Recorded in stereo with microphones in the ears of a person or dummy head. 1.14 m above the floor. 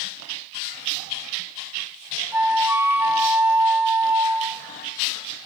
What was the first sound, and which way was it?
A flute, 5° right (ahead or behind).